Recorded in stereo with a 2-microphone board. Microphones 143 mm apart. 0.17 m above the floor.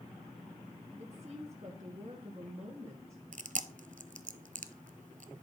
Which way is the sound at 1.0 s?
50° right (ahead or behind).